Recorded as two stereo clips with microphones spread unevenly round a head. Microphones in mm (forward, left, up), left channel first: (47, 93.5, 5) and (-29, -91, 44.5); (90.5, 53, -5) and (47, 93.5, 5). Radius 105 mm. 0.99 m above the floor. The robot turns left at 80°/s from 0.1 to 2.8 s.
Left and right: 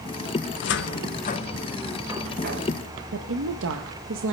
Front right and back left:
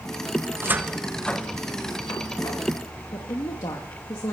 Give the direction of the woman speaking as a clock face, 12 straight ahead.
3 o'clock.